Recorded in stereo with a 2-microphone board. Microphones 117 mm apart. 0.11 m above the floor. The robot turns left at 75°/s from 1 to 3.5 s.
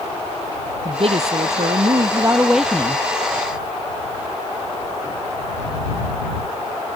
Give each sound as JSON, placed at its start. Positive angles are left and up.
{"t": 0.8, "sound": "a woman speaking", "azimuth_deg": -55}